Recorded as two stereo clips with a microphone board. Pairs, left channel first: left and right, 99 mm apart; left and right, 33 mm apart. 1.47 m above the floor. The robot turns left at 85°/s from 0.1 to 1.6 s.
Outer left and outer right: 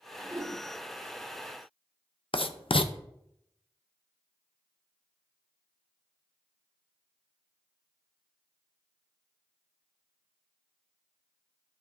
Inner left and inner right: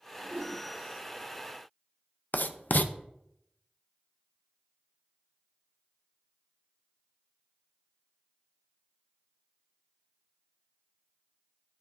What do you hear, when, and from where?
0.2 s a whoosh: 130° right, 3.5 m; by 0.6 s 165° right, 3.5 m
2.3 s writing: 60° left (ahead or behind), 0.5 m